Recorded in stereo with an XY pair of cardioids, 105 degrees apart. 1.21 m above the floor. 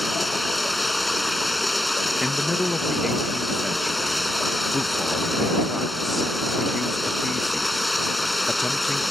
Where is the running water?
10° left.